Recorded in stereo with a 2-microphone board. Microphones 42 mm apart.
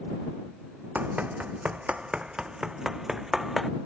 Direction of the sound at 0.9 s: 40° right (ahead or behind).